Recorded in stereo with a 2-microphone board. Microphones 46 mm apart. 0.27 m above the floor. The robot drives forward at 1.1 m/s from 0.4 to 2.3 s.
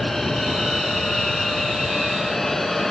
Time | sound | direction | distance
0.0 | an aircraft | 10° left (ahead or behind) | ?